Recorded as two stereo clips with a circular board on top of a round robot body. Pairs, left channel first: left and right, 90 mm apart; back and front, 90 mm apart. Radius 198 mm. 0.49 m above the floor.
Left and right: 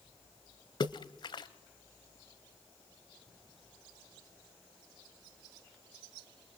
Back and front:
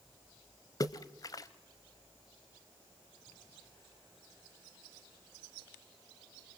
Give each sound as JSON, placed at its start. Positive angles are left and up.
{"t": 0.8, "sound": "a splash", "azimuth_deg": 130, "distance_m": 0.9}